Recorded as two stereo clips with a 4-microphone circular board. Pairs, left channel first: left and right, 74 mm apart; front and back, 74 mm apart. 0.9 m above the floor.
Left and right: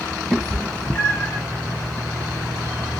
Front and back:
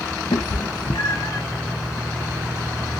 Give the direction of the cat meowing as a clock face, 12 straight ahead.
12 o'clock.